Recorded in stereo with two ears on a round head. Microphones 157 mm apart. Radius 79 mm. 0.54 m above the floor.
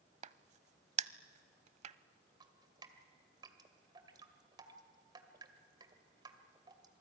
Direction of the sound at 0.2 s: 40° right (ahead or behind).